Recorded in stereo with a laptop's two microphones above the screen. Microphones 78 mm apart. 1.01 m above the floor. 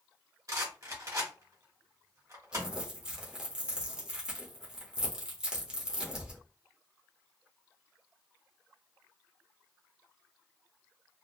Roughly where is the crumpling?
Centre.